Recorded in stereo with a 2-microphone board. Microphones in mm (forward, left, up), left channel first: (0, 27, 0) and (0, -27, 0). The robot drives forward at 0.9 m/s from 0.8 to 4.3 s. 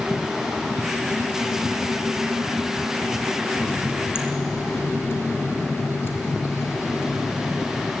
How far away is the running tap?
About 2.5 m.